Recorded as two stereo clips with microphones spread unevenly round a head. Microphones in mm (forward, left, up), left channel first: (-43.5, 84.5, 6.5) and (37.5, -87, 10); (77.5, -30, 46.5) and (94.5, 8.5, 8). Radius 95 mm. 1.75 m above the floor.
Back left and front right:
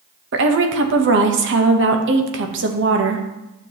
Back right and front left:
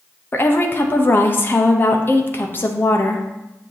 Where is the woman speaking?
95° right, 1.0 m.